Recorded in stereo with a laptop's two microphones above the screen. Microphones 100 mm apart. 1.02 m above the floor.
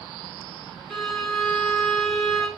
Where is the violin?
5° left (ahead or behind), 4.5 m.